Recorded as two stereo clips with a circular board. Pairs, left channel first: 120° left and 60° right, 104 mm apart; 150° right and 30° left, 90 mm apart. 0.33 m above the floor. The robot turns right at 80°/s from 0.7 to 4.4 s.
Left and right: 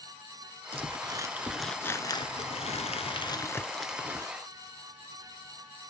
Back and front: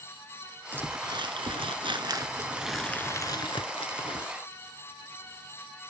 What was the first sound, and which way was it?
Crumpling, 40° right.